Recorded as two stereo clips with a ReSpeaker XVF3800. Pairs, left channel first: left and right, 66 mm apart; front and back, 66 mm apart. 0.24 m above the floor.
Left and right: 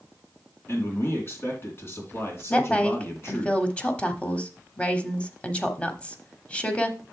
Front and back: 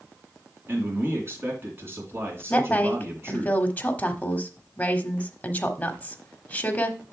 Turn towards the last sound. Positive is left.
turn(degrees=40)